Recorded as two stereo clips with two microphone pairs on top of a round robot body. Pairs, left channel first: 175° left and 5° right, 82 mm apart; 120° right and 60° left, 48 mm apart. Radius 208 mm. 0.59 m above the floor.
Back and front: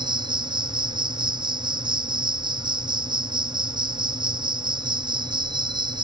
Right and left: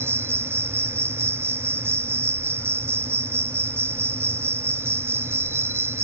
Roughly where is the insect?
Ahead left.